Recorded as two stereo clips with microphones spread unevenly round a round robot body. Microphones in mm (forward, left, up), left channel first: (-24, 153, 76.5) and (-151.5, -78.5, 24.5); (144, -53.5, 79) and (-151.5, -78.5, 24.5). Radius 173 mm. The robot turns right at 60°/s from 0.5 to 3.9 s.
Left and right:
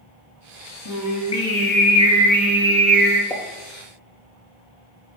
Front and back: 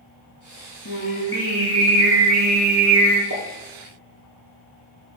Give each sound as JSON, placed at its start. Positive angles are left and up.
{"t": 0.8, "sound": "singing", "azimuth_deg": 60, "distance_m": 3.5}
{"t": 3.3, "sound": "a pop", "azimuth_deg": 135, "distance_m": 3.5}